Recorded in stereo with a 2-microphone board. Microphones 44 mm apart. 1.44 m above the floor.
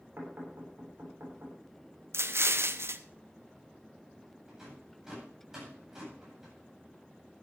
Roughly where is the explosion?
Right.